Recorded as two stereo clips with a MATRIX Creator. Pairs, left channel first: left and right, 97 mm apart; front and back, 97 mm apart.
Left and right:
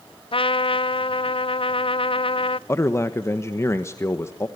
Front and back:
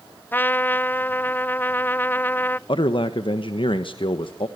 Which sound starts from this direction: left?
A trumpet, at 0.3 s.